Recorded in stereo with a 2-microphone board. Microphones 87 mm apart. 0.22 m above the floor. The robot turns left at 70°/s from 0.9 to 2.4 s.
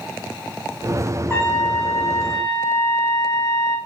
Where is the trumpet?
150° left, 0.9 m; by 3.8 s 75° left, 0.9 m.